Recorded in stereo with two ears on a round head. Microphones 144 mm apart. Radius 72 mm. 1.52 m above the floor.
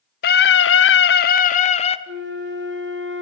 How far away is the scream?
About 0.8 m.